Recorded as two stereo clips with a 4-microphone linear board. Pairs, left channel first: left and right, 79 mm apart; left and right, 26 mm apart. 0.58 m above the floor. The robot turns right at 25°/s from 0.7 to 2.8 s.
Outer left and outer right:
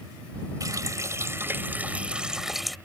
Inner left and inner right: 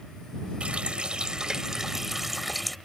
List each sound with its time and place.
0.6 s a running tap: 50° right; by 2.8 s straight ahead